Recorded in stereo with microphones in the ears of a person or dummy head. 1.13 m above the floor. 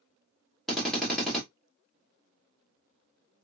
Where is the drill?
Centre (ahead or behind), 1.6 m.